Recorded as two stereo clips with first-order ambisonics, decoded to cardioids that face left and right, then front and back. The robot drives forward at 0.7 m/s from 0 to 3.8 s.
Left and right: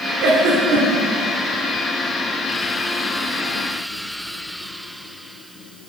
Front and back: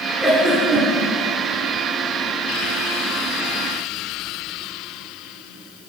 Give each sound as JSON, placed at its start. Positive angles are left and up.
{"t": 0.2, "sound": "a giggle", "azimuth_deg": -85, "distance_m": 1.0}